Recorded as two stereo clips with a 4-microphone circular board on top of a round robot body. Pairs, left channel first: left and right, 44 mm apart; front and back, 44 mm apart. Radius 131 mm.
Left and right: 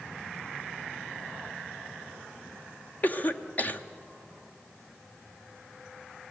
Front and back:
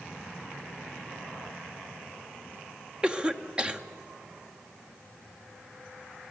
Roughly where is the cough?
Behind left.